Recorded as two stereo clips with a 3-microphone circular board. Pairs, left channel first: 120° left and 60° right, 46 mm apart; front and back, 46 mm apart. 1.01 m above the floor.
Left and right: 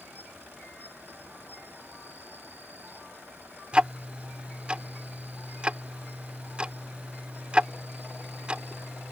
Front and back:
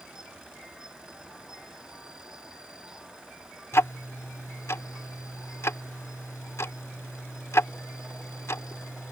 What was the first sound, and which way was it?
An insect, 105° right.